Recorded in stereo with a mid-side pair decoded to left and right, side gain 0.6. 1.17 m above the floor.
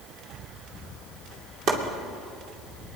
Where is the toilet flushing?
I don't hear a toilet flushing.